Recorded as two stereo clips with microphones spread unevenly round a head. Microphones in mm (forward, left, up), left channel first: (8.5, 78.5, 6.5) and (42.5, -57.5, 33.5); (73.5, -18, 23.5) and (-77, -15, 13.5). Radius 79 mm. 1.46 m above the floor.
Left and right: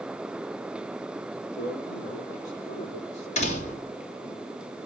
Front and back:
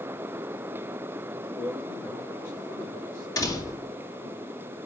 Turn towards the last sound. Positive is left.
turn(degrees=70)